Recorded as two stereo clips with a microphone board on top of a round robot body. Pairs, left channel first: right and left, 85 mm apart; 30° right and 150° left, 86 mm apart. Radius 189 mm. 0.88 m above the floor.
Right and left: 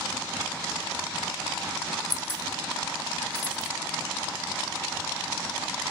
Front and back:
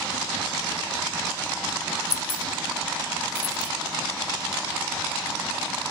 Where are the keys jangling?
25° right, 0.7 m.